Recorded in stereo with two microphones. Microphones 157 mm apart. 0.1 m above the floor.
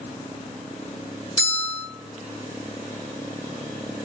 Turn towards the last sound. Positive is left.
turn(degrees=40)  # may be behind; listen again after turning